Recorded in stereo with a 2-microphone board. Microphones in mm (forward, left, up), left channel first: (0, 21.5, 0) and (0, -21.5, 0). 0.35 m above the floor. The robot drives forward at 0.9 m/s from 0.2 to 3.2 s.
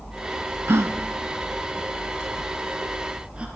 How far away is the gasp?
About 1.1 m.